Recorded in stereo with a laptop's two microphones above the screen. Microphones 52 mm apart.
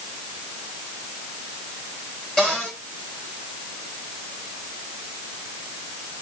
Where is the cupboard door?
15° left (ahead or behind), 6 m.